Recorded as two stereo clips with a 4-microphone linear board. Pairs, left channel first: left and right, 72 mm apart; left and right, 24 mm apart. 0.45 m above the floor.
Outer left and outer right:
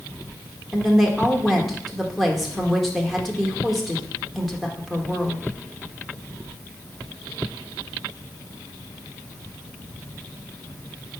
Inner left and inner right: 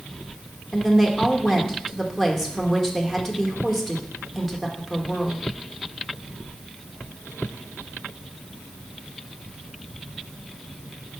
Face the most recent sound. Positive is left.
turn(degrees=0)  # may be behind; listen again after turning